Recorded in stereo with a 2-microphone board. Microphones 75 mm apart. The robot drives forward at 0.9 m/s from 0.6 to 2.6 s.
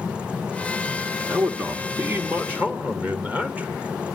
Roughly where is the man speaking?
Right.